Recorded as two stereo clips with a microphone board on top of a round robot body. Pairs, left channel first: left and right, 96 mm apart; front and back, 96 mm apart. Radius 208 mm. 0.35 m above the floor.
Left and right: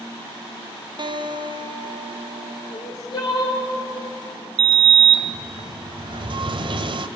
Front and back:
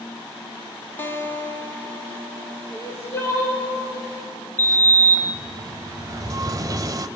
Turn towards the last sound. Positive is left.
turn(degrees=-125)